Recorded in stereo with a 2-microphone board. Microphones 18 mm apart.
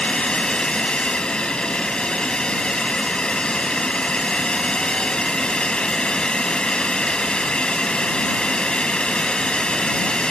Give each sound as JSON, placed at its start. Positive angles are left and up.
{"t": 0.0, "sound": "a drone", "side_deg": 50}